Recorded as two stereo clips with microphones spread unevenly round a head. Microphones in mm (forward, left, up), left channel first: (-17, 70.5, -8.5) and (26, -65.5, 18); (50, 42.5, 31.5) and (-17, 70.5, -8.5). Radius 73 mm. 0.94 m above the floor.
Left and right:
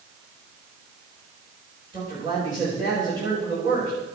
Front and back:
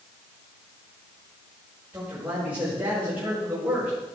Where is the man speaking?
135° right, 4.5 m.